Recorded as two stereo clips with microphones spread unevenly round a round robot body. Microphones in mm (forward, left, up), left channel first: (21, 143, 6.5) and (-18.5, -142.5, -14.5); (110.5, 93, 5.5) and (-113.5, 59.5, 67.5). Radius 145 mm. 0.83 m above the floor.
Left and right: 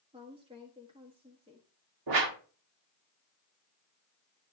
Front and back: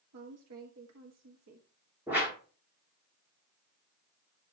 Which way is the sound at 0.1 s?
165° right.